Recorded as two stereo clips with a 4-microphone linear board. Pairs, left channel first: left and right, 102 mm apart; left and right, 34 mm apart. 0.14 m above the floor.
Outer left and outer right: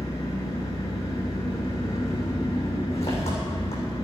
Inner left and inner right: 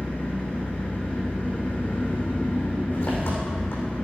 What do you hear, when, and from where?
0.0 s an engine running: 80° left, 7 m